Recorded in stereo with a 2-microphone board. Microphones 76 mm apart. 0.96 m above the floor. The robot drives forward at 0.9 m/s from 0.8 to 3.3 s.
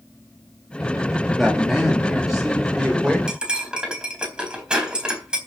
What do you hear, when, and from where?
1.4 s a man speaking: centre (ahead or behind), 2 m
3.3 s cutlery clinking: 10° right (ahead or behind), 4 m